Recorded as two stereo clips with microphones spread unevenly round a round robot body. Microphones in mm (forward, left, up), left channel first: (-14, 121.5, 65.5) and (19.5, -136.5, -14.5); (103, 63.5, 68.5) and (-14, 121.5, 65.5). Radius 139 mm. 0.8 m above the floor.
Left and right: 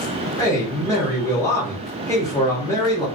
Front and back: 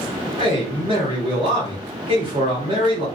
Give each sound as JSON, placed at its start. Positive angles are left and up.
{"t": 0.4, "sound": "a man speaking", "azimuth_deg": -170, "distance_m": 1.1}